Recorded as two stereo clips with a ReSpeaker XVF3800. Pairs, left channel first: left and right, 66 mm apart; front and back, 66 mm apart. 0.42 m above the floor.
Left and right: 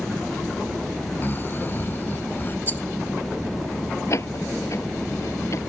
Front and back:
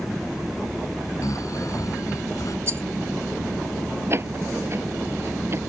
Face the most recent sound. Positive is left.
turn(degrees=130)